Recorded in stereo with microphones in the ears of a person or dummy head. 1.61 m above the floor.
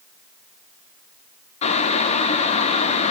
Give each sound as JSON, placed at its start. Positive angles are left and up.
{"t": 1.6, "sound": "boiling", "side_deg": 35, "distance_m": 0.6}